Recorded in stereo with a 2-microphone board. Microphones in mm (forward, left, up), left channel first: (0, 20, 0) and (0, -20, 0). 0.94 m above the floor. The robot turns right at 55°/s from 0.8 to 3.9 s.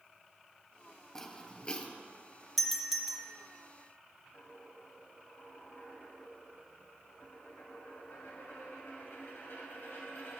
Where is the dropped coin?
70° left (ahead or behind), 2.5 m.